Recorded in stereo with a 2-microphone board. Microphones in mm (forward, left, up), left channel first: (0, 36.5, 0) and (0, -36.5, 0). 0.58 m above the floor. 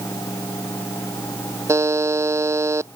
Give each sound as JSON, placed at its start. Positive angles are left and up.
{"t": 1.7, "sound": "a buzzer", "side_deg": -40}